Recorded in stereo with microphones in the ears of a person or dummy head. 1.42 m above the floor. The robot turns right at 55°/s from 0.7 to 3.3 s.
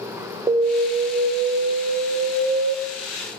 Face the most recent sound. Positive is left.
turn(degrees=-25)